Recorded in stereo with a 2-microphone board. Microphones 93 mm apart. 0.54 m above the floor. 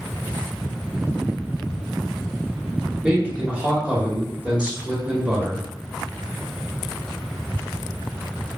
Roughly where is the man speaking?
Centre.